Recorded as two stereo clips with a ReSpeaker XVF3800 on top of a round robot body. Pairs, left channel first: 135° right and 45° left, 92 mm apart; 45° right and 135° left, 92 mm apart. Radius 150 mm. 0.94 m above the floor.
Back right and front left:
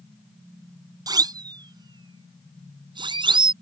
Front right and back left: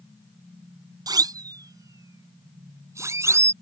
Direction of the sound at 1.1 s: 90° left.